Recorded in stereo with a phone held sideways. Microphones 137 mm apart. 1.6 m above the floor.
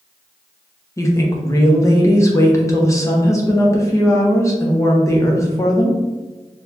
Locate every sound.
1.0 s a woman speaking: 20° left (ahead or behind), 0.9 m